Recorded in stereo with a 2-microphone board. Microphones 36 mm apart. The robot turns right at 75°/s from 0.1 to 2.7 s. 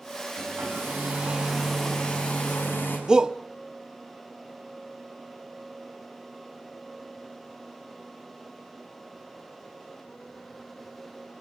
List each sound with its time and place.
0.3 s a hair dryer: 100° right, 6.5 m; by 3.0 s 75° left, 6.5 m
3.1 s a shout: 20° right (ahead or behind), 0.7 m